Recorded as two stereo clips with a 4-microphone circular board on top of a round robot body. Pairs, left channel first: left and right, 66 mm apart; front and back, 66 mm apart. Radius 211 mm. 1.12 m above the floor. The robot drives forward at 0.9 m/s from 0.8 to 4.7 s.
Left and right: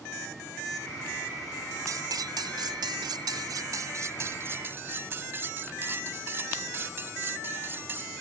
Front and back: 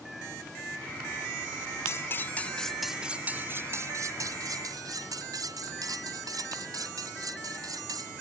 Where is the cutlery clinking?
50° right; by 8.1 s 150° right.